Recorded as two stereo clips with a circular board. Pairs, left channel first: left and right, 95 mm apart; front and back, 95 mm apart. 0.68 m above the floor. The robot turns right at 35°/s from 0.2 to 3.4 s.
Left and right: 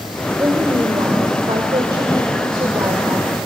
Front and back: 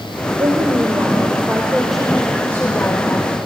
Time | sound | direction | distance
0.4 | a woman speaking | 145° right | 2 m